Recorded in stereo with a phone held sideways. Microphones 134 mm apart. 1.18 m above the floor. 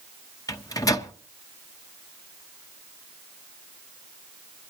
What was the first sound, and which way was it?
A microwave, 25° left (ahead or behind).